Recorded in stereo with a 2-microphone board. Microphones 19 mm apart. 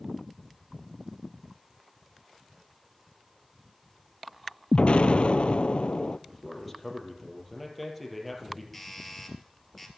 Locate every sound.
4.7 s an explosion: 80° left, 0.5 m
6.3 s a man speaking: centre (ahead or behind), 4 m
8.7 s a doorbell: 5° left (ahead or behind), 3 m